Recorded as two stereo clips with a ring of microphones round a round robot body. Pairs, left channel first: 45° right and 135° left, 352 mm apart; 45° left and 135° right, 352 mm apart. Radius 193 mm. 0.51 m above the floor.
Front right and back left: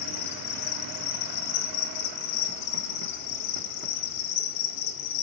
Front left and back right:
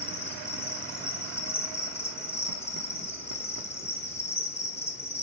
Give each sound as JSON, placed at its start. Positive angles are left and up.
{"t": 0.0, "sound": "an insect", "azimuth_deg": -40, "distance_m": 0.7}